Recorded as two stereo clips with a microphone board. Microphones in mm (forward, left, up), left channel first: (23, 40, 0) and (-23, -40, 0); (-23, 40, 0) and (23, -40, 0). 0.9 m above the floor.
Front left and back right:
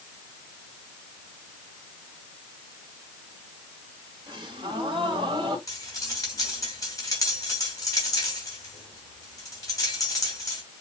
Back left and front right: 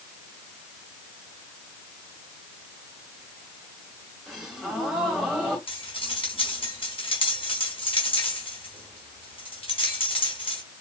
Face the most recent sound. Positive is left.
turn(degrees=110)